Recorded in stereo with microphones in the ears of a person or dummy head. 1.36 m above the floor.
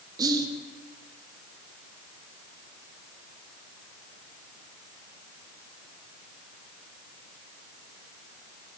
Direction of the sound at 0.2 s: 25° right (ahead or behind).